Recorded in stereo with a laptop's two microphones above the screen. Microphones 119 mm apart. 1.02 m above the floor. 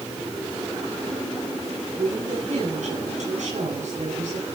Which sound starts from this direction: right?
A woman speaking, at 1.9 s.